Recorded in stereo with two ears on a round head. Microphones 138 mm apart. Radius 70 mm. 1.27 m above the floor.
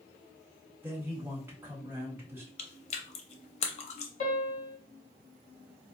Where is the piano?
55° left (ahead or behind), 1.5 m.